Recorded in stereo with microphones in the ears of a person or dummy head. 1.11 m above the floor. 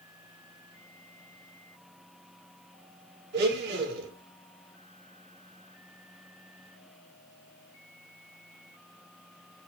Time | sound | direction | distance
3.3 | a blender | 60° right (ahead or behind) | 3 m